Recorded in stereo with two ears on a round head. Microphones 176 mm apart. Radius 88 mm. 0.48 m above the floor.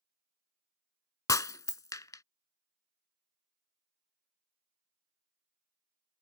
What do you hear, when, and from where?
1.3 s breaking glass: 20° left (ahead or behind)